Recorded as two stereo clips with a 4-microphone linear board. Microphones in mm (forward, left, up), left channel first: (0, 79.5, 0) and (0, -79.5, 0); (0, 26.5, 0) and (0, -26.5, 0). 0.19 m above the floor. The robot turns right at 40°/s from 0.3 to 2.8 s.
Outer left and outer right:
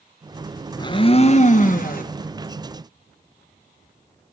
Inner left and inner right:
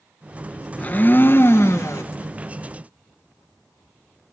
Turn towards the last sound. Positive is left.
turn(degrees=110)